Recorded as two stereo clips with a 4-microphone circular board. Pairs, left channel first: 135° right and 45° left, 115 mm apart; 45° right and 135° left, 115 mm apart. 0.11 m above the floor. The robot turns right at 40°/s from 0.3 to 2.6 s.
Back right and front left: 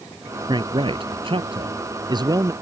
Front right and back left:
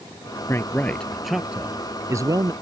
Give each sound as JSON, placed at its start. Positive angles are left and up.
{"t": 0.5, "sound": "a man speaking", "azimuth_deg": 15}